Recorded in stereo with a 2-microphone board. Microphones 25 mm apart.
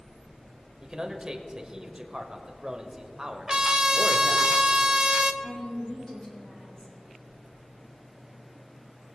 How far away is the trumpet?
About 0.5 m.